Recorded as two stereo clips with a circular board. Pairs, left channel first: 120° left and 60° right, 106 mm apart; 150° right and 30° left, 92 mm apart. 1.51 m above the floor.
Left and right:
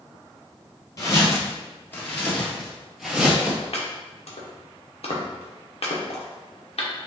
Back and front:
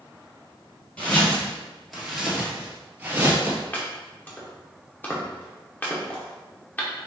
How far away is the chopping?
About 1.0 m.